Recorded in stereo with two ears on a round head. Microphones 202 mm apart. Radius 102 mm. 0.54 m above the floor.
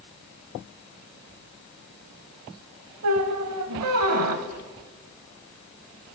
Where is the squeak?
75° right (ahead or behind), 0.7 m.